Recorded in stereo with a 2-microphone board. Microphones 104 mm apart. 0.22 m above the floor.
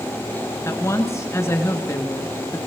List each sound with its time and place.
0.7 s a woman speaking: 30° left (ahead or behind), 2.5 m